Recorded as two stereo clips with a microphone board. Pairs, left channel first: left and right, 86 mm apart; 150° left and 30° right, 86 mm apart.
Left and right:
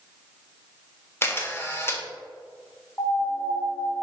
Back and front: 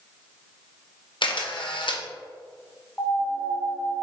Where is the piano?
100° left, 0.6 m.